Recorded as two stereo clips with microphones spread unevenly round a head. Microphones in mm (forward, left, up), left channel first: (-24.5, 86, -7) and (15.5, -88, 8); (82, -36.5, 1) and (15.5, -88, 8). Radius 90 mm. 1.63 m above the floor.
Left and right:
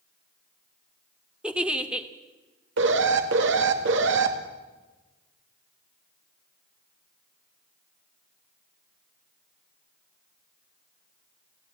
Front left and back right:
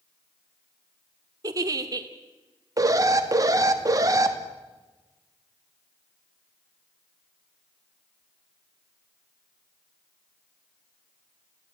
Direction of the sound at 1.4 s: 155° right.